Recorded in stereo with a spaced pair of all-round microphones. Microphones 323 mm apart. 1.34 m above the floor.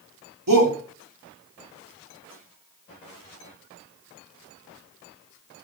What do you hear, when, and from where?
0.5 s a shout: 85° right, 3.5 m